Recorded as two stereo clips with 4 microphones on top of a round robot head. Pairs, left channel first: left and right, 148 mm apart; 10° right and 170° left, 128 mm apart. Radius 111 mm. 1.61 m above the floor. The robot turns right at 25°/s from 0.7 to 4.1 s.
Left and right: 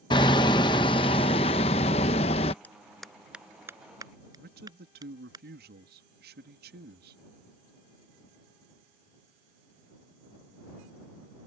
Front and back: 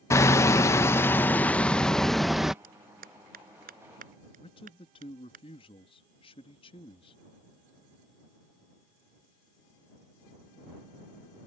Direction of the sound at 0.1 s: 40° left.